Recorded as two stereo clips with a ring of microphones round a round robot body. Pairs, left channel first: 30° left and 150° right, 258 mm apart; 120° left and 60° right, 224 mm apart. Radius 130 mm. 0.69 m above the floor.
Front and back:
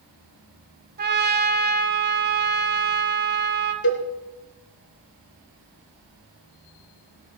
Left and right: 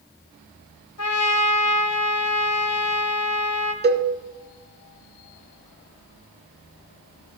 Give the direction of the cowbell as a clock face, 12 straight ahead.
1 o'clock.